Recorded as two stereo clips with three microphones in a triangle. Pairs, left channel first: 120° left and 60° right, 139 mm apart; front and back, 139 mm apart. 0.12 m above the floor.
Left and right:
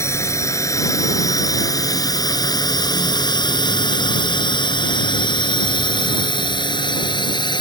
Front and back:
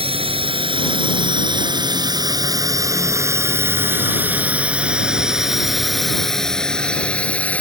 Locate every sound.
0.0 s a drone: straight behind; by 7.6 s 75° left